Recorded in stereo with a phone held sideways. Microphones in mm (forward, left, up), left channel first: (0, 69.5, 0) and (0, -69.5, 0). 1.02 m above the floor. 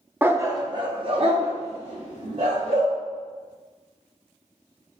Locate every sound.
0.2 s a dog barking: 15° right (ahead or behind), 0.6 m; by 2.9 s 60° right (ahead or behind), 2.5 m